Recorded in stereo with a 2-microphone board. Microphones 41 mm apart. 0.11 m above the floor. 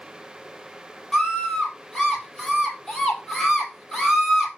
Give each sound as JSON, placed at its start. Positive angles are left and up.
{"t": 1.1, "sound": "a scream", "side_deg": 5, "distance_m": 3.0}